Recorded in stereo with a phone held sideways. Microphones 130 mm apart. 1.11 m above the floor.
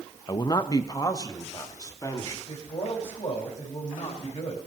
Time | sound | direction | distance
0.3 | a man speaking | 35° left (ahead or behind) | 0.6 m
2.5 | a man speaking | 60° left (ahead or behind) | 5 m